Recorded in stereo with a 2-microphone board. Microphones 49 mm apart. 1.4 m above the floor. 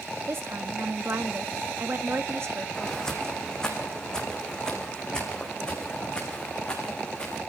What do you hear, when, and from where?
0.3 s a woman speaking: 55° right (ahead or behind), 1.9 m
2.8 s footsteps: 10° left (ahead or behind), 4.5 m; by 7.4 s 20° left (ahead or behind), 7 m